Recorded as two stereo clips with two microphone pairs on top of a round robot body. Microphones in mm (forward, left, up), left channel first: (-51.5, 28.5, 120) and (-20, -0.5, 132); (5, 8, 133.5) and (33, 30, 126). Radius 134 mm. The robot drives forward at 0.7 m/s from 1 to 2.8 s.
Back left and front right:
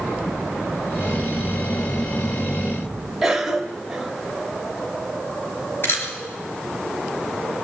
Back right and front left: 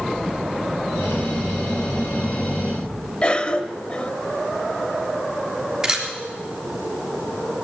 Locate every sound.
3.2 s a cough: 155° right, 1.5 m
5.8 s a camera shutter: 110° left, 3.5 m